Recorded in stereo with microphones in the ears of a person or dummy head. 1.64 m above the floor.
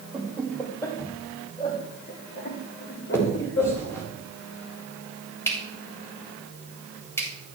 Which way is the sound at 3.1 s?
10° left (ahead or behind).